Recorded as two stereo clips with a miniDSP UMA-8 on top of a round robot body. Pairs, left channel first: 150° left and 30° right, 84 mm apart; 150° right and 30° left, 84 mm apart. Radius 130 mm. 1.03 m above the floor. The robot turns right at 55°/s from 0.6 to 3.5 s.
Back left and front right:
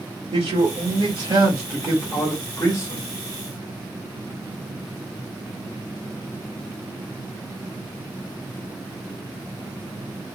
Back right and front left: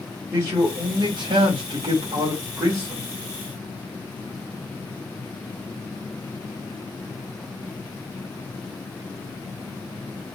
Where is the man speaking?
25° right, 1.4 m; by 3.1 s 115° left, 1.4 m.